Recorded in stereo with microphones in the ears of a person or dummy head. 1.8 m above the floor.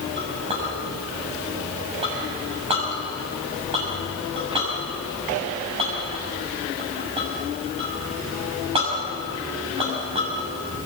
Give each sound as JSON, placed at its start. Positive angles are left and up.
{"t": 0.2, "sound": "a clink", "side_deg": -25, "distance_m": 6.5}